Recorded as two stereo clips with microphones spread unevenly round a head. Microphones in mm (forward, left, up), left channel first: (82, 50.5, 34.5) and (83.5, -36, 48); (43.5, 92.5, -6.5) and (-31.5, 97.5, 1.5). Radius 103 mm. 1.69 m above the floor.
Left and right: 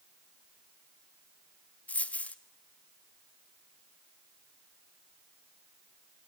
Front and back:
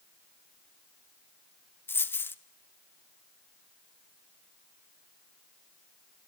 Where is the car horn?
No car horn in this recording.